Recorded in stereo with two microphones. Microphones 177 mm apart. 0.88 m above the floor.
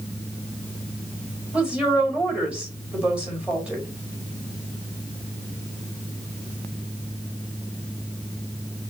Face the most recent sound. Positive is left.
turn(degrees=-5)  # may be behind; listen again after turning